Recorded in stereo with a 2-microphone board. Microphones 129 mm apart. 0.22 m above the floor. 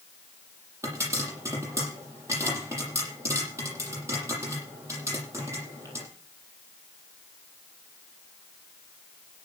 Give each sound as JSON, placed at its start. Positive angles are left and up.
{"t": 0.8, "sound": "a pop", "side_deg": -25, "distance_m": 7.5}